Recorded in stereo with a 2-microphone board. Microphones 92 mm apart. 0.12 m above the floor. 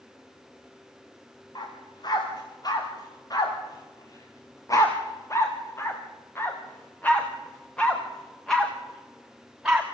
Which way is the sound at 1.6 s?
50° left (ahead or behind).